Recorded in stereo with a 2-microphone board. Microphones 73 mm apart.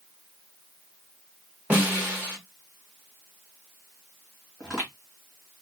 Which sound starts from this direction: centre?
Footsteps, at 4.6 s.